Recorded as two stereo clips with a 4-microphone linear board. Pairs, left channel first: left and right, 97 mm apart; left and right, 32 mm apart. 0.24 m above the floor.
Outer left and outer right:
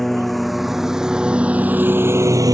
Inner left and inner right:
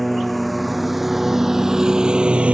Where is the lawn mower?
5° left (ahead or behind); by 2.6 s 40° right (ahead or behind).